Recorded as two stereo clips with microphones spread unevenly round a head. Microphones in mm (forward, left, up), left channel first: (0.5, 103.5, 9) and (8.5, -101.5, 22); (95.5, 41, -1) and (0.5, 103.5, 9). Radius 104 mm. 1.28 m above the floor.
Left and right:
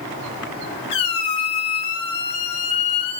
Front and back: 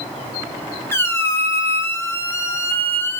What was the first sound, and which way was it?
A squeak, 35° left.